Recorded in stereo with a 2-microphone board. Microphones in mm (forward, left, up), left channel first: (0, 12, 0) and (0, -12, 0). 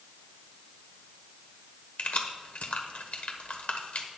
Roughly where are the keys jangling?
Left.